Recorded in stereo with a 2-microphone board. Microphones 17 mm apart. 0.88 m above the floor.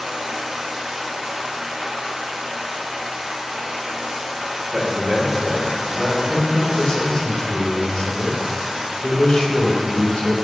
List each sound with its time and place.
0.0 s running water: 80° right, 1.7 m
4.7 s a man speaking: 25° right (ahead or behind), 2.5 m
6.3 s a man speaking: 75° left (ahead or behind), 1.7 m